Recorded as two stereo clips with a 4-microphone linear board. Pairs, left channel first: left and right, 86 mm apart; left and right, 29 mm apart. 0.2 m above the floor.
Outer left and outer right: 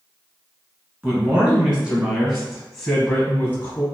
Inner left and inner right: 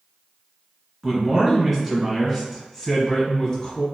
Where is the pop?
I don't hear a pop.